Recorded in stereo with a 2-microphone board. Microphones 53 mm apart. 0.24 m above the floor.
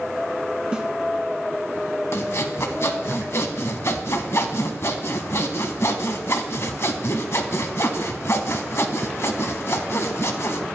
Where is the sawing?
55° left (ahead or behind), 0.7 m.